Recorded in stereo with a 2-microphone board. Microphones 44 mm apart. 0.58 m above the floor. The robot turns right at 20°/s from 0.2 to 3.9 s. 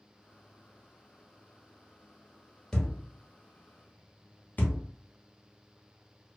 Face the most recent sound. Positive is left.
turn(degrees=40)  # may be behind; listen again after turning